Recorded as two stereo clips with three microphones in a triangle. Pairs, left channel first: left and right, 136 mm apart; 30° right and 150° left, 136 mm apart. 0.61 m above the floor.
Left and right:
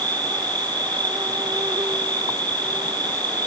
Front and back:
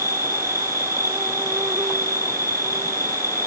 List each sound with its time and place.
0.0 s an insect: 145° right